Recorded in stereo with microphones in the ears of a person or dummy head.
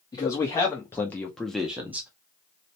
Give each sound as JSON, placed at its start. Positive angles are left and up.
{"t": 0.1, "sound": "a man speaking", "side_deg": 20, "distance_m": 1.0}